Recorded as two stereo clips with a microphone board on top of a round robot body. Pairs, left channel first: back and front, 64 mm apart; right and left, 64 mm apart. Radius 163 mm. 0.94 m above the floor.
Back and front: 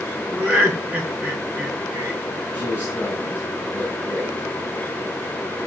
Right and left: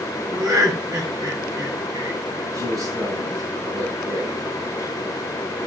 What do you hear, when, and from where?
0.3 s laughter: 65° left, 4 m
2.5 s a man speaking: 65° left, 9 m